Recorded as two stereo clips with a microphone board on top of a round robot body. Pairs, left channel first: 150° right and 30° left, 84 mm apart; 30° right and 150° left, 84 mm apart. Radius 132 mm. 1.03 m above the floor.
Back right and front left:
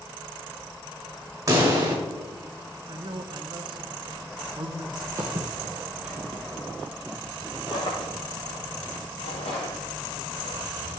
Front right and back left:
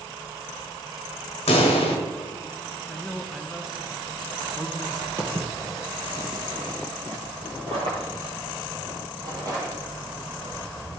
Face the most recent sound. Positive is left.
turn(degrees=-150)